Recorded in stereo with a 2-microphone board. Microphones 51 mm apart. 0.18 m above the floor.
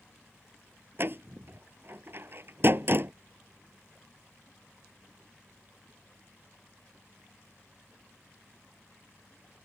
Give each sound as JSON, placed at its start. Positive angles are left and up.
{"t": 1.0, "sound": "a door slam", "side_deg": -45}